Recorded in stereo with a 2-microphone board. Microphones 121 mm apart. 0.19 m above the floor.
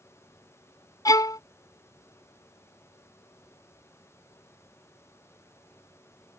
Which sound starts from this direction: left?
A violin, at 1.1 s.